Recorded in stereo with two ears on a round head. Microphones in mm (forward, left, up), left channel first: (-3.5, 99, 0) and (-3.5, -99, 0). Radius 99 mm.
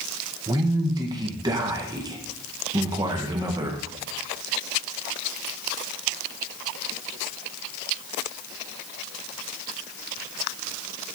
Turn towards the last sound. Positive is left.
turn(degrees=-20)  # may be behind; listen again after turning